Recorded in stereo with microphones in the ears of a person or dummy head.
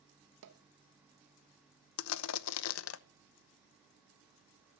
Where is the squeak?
I don't hear a squeak.